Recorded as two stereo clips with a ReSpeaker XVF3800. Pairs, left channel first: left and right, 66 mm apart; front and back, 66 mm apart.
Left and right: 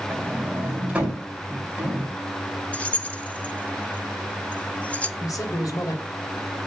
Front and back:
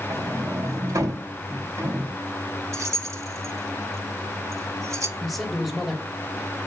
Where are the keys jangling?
155° left, 0.7 m.